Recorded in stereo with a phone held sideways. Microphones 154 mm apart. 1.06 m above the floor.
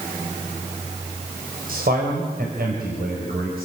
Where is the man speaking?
75° right (ahead or behind), 4.5 m; by 3.7 s 85° right, 6 m.